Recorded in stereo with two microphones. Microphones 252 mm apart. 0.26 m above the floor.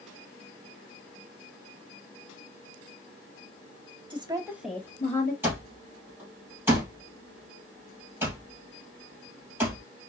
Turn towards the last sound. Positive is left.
turn(degrees=-10)  # may be behind; listen again after turning